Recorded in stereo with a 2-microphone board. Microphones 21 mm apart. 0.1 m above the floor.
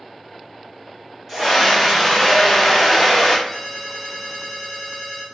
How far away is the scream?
About 1.8 m.